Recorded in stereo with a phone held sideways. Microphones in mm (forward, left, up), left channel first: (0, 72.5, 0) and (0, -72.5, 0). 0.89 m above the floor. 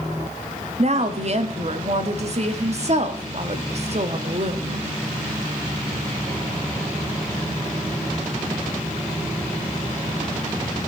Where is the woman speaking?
50° right (ahead or behind), 1.4 m.